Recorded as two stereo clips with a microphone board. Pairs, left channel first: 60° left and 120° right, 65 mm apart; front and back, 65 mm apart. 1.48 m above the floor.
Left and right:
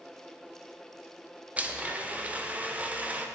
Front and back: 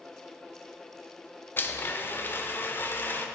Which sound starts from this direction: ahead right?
A blender, at 1.6 s.